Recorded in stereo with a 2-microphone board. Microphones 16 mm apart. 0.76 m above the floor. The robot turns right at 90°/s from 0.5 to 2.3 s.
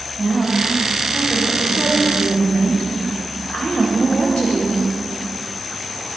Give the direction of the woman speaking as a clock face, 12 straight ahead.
2 o'clock.